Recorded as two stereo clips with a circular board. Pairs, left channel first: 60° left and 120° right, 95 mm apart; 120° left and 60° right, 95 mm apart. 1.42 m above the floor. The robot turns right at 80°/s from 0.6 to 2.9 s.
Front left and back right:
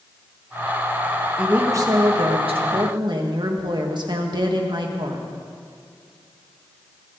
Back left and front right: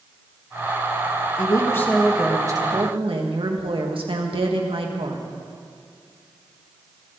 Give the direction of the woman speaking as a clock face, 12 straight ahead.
7 o'clock.